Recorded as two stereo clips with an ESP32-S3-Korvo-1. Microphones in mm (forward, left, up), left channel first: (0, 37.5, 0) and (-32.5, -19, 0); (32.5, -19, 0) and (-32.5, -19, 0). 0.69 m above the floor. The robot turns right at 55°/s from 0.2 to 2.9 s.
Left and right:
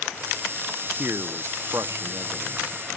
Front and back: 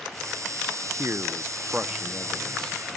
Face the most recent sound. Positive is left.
turn(degrees=-60)